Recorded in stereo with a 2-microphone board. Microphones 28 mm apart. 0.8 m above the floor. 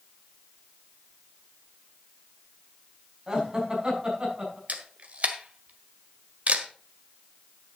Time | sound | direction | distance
3.3 | laughter | 25° right (ahead or behind) | 5.5 m
4.7 | a camera shutter | 50° right (ahead or behind) | 1.5 m